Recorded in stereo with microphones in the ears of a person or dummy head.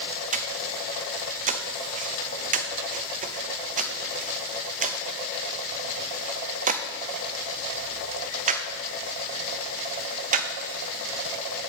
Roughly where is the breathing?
Right.